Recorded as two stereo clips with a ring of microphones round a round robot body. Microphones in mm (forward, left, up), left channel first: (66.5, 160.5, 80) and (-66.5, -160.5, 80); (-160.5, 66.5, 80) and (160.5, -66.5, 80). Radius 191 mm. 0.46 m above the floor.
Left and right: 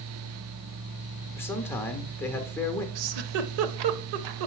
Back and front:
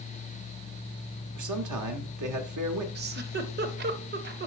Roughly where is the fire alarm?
No fire alarm in this recording.